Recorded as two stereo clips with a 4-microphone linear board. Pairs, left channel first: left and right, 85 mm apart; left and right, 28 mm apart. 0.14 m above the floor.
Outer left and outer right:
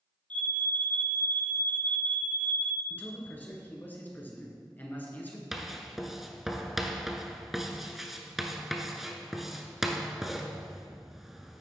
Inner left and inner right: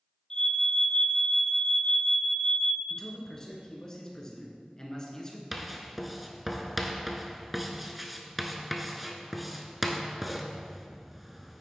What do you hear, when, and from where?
0.3 s an alarm: 20° left (ahead or behind), 1.3 m
2.9 s a man speaking: 20° left (ahead or behind), 2 m
5.5 s writing: 5° right (ahead or behind), 0.8 m